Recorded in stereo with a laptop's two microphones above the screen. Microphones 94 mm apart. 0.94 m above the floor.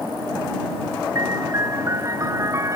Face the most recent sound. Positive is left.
turn(degrees=-35)  # may be behind; listen again after turning